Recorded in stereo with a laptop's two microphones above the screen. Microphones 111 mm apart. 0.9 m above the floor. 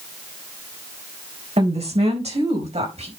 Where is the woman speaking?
80° right, 4 m; by 3.1 s 85° right, 4.5 m.